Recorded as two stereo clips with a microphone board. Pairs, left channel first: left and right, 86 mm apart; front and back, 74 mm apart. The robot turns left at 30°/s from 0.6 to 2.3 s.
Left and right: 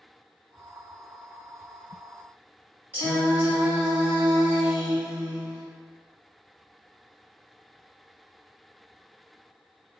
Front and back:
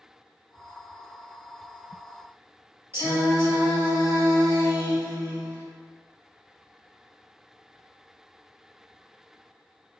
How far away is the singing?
About 1.7 m.